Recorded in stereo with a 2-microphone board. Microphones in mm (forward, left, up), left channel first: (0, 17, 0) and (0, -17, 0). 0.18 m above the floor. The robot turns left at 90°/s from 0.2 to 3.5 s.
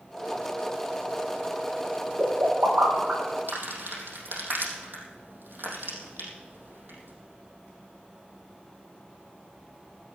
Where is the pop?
40° right (ahead or behind), 6 m; by 3.6 s 20° right (ahead or behind), 6 m.